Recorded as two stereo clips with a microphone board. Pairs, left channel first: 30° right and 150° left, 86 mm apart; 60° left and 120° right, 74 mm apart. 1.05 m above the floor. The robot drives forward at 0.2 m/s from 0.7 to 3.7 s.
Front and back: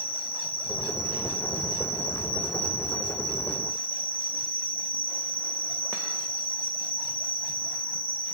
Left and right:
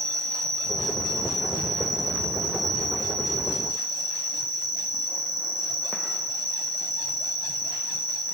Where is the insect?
145° left, 3 m; by 8.3 s 150° left, 3.5 m.